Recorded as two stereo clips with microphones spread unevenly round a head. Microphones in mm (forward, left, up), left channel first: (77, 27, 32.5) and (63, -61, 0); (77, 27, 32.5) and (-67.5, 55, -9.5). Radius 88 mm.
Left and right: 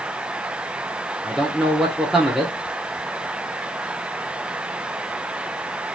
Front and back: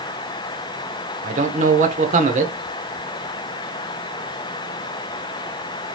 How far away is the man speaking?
About 1.1 m.